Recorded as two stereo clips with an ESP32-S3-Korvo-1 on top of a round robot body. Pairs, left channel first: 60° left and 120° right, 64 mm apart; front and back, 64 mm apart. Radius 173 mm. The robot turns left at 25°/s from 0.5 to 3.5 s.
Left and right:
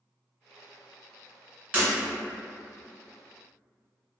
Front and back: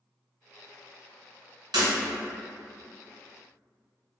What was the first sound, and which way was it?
Breaking glass, 170° left.